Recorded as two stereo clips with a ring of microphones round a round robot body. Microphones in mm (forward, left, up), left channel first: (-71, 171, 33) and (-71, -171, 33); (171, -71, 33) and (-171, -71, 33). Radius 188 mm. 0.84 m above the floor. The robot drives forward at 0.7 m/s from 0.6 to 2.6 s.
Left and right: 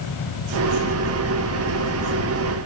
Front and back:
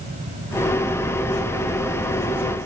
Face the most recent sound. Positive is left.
No sound to turn to.